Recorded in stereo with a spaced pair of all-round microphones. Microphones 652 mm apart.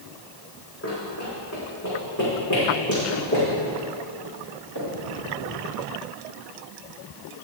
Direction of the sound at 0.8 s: 20° left (ahead or behind).